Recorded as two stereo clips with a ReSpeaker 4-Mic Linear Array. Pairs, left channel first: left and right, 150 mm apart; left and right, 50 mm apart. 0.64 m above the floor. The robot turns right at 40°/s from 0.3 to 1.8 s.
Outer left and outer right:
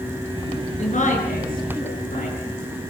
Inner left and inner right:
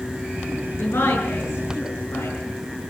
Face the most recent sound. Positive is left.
turn(degrees=85)